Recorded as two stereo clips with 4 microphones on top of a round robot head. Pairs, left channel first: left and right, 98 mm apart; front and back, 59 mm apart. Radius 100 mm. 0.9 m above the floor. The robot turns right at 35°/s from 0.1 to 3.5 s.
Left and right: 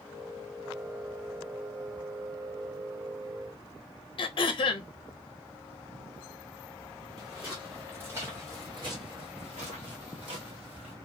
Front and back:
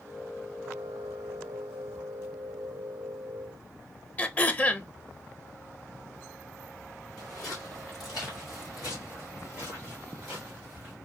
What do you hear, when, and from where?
4.2 s throat clearing: 60° left, 0.8 m
7.2 s footsteps: 5° right, 1.7 m; by 10.9 s 100° right, 1.6 m